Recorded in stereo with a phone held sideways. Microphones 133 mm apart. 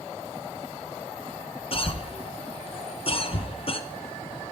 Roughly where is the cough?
Left.